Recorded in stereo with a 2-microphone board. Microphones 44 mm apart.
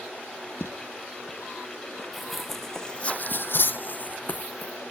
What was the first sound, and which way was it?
Footsteps, 60° left (ahead or behind).